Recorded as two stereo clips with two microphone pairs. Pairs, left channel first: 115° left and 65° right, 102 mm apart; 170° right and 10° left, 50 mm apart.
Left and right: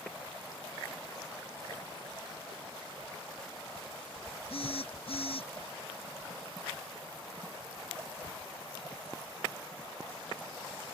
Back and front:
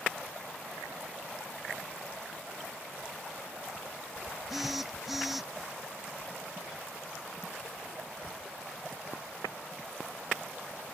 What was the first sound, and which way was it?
A phone buzzing, 95° left.